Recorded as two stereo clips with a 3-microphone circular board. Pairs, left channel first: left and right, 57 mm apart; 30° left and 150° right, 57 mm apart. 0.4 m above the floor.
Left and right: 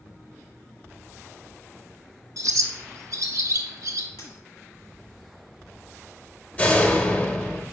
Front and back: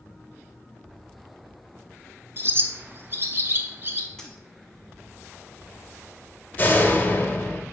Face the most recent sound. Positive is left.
turn(degrees=50)